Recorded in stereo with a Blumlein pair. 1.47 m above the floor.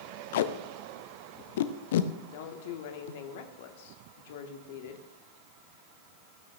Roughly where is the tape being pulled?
Ahead left.